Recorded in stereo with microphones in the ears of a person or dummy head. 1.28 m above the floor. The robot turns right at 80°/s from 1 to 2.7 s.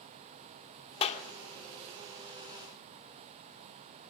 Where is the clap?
35° left (ahead or behind), 2.5 m; by 1.2 s 50° left (ahead or behind), 2.5 m.